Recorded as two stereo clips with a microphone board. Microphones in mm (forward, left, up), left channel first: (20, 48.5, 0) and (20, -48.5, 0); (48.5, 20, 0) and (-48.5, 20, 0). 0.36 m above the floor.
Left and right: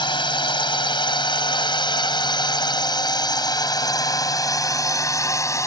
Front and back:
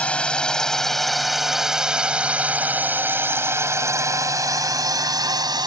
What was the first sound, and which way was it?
A drone, 75° left.